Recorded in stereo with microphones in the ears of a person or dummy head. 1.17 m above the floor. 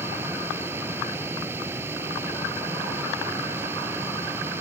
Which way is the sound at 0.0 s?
10° right (ahead or behind).